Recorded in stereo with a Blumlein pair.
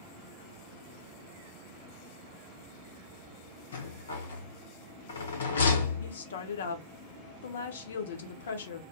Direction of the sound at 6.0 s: 65° left.